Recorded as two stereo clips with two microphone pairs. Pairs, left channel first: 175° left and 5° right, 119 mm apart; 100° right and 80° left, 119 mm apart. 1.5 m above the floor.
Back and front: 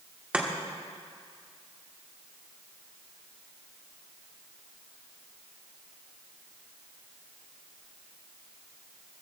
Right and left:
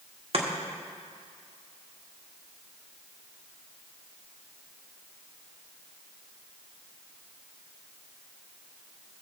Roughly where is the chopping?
Left.